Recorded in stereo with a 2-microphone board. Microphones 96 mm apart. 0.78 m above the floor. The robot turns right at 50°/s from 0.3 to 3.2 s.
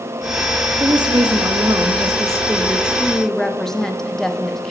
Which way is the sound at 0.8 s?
115° right.